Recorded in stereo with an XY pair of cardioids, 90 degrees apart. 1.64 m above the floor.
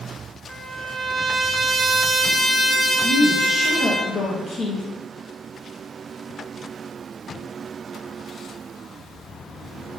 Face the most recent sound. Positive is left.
turn(degrees=45)